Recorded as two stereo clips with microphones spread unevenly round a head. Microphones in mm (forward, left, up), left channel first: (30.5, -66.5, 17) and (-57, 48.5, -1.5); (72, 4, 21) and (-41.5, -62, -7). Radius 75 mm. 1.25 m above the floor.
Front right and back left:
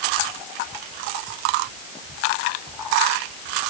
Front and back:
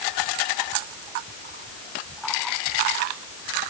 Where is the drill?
I don't hear a drill.